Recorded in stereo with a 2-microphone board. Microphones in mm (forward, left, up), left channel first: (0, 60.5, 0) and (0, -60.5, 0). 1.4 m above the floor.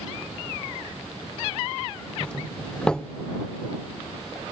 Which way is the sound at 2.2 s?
5° left (ahead or behind).